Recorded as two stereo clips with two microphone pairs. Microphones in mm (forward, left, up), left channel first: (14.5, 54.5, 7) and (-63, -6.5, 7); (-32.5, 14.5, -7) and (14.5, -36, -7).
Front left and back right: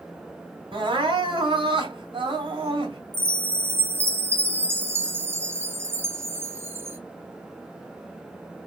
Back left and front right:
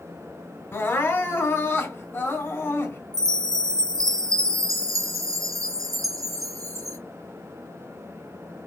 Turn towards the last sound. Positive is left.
turn(degrees=-80)